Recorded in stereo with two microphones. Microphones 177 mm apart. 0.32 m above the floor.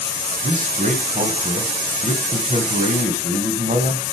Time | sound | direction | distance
0.4 | a man speaking | 45° right (ahead or behind) | 2 m